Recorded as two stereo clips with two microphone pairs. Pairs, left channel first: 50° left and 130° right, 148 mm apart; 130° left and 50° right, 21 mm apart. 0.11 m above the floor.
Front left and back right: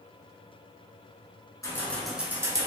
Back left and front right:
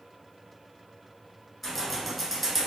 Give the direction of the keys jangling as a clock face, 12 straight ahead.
10 o'clock.